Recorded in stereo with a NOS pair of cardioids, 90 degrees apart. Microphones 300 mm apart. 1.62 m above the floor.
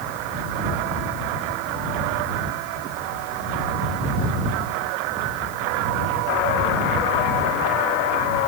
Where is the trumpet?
No trumpet in this recording.